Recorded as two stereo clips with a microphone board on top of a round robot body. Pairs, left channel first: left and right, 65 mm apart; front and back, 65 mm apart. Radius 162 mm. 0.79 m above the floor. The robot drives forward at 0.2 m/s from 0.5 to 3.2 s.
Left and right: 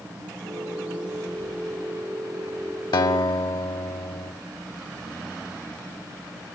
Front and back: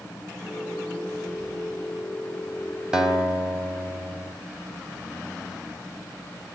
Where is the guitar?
95° left, 1.5 m; by 4.3 s 100° left, 1.5 m.